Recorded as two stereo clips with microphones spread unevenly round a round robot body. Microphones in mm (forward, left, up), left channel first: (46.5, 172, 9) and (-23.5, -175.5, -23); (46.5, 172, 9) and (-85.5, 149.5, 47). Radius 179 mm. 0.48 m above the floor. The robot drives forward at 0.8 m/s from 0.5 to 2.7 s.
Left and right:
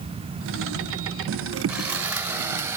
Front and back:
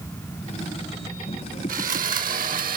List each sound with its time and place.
1.7 s sawing: 175° left